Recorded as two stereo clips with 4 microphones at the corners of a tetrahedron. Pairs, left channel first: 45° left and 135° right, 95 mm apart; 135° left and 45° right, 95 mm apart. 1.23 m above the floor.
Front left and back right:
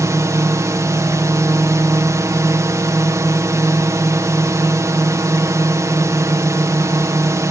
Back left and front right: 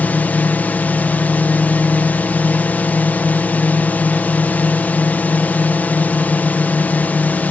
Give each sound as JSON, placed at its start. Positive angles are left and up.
{"t": 0.0, "sound": "a drone", "azimuth_deg": -165}